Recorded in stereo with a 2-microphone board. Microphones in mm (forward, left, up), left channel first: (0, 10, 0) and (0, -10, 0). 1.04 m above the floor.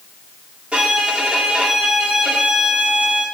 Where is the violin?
65° right (ahead or behind), 2.5 m.